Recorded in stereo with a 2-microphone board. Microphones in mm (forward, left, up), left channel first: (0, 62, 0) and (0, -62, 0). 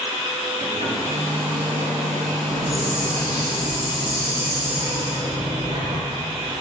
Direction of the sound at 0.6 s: 60° right (ahead or behind).